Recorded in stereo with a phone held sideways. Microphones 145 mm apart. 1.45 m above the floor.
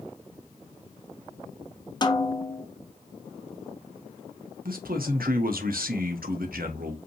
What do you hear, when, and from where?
2.0 s a snare drum: 30° left (ahead or behind), 0.7 m
4.7 s a man speaking: 85° right, 1.1 m